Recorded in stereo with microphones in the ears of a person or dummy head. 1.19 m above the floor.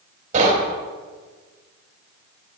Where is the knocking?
50° right (ahead or behind), 3.5 m.